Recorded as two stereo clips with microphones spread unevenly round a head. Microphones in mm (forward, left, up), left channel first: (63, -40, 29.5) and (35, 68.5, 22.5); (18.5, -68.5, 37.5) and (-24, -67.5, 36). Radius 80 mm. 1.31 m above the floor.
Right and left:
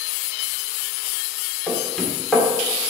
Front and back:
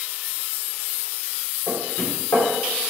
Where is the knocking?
5° left, 3 m.